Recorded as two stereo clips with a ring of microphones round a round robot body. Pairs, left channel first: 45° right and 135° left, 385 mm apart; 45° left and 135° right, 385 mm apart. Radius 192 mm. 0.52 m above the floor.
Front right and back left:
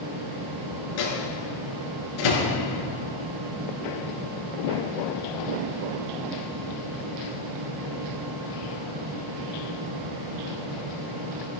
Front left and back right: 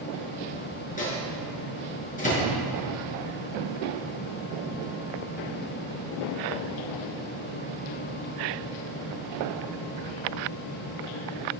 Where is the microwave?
25° right, 6 m.